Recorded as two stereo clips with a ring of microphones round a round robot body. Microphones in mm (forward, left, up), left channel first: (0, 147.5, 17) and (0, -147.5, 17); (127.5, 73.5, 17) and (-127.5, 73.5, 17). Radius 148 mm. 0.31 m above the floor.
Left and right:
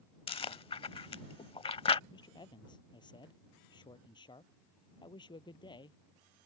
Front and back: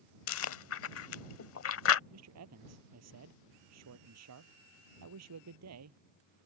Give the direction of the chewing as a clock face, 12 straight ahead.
11 o'clock.